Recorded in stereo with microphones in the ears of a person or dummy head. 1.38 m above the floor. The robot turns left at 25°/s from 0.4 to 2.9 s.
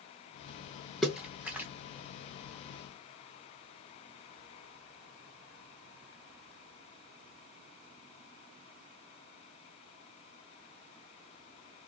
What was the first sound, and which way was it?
A splash, centre (ahead or behind).